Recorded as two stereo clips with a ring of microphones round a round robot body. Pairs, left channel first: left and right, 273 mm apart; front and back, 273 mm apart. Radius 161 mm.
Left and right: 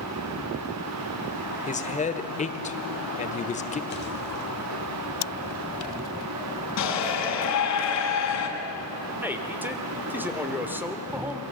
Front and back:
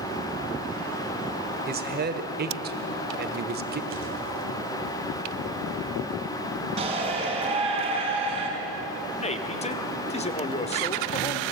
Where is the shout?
110° left, 4.5 m.